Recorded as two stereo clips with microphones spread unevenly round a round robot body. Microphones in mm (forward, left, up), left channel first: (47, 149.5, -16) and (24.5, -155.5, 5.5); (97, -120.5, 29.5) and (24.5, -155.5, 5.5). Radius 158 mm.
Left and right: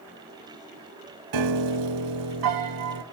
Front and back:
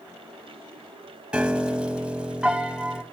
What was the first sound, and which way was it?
A piano, 70° right.